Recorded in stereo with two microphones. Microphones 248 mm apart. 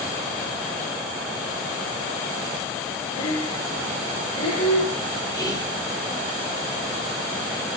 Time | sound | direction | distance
3.2 | breathing | 65° left (ahead or behind) | 0.7 m
5.3 | whispering | 15° left (ahead or behind) | 0.9 m